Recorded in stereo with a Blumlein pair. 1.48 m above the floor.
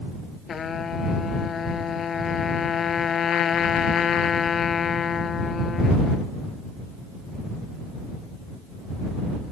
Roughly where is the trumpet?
Ahead.